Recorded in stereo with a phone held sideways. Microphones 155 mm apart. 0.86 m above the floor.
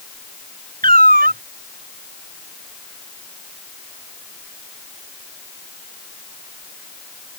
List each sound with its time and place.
0.8 s a cat meowing: 70° right (ahead or behind)